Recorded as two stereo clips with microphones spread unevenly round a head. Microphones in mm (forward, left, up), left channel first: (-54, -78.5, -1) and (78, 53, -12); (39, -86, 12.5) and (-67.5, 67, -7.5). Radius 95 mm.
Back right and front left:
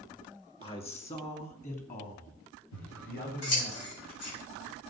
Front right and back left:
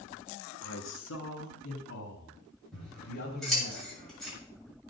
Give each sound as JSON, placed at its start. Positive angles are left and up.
{"t": 0.6, "sound": "a man speaking", "azimuth_deg": -70, "distance_m": 2.5}
{"t": 2.7, "sound": "scissors", "azimuth_deg": -145, "distance_m": 7.5}